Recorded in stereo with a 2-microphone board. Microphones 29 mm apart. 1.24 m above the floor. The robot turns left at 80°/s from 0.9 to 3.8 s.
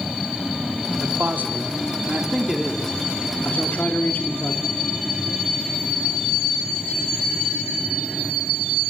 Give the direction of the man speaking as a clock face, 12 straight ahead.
2 o'clock.